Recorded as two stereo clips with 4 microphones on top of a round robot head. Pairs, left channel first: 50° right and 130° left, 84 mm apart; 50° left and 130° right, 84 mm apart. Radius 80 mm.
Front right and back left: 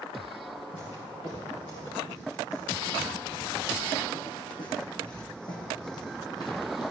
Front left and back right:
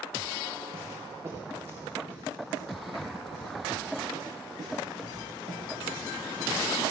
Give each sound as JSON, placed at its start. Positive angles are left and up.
{"t": 0.7, "sound": "footsteps", "azimuth_deg": -75, "distance_m": 7.5}